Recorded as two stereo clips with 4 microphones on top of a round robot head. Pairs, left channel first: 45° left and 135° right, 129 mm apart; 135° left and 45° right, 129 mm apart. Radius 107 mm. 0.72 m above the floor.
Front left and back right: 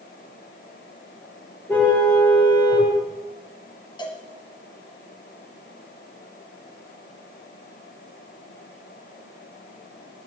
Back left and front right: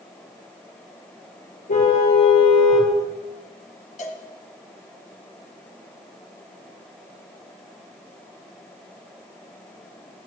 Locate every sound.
1.7 s a car horn: 120° left, 6.5 m
4.0 s a cowbell: 100° left, 2.5 m